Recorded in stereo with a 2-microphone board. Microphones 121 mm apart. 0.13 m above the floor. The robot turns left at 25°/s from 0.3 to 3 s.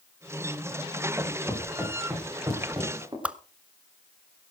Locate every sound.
1.2 s footsteps: 10° left (ahead or behind), 9.5 m; by 3.1 s 30° right (ahead or behind), 10 m
3.2 s a whoosh: 10° right (ahead or behind), 0.8 m